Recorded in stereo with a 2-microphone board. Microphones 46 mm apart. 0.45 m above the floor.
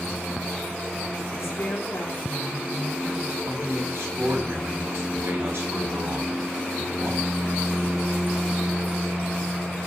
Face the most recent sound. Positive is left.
turn(degrees=-70)  # may be behind; listen again after turning